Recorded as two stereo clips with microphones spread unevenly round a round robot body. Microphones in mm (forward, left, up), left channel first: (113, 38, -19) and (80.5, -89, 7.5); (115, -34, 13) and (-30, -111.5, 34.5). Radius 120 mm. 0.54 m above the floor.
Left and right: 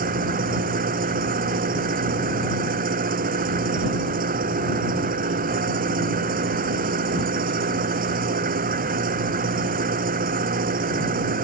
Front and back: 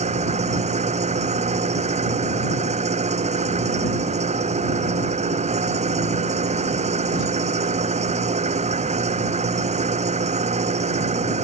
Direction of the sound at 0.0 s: 105° right.